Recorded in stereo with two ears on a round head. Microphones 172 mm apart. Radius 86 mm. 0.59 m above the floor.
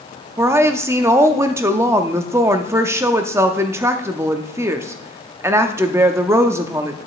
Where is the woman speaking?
15° right (ahead or behind), 0.6 m.